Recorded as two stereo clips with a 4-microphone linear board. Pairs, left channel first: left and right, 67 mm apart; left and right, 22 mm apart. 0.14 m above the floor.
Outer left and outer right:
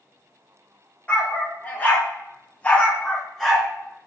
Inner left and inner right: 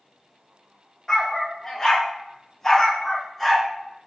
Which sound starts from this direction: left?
A dog barking, at 1.1 s.